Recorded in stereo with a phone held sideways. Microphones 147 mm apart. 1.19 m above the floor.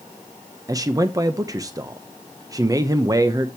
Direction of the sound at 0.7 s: 25° right (ahead or behind).